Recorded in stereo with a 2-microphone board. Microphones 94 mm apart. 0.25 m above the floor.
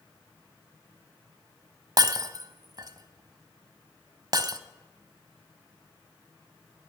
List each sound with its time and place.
2.0 s breaking glass: 45° right (ahead or behind), 0.7 m